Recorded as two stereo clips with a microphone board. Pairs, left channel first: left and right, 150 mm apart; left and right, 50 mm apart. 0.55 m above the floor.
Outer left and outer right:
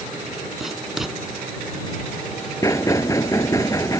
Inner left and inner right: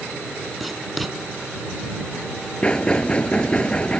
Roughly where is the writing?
Centre.